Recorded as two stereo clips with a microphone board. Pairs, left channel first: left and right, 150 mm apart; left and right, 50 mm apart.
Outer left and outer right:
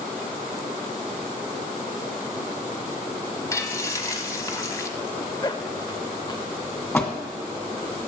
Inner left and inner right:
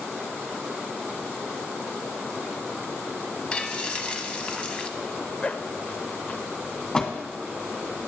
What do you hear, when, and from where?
3.5 s frying: 20° left (ahead or behind), 0.9 m
5.0 s a zipper: 30° left (ahead or behind), 0.6 m
6.9 s a door slam: 15° left (ahead or behind), 1.8 m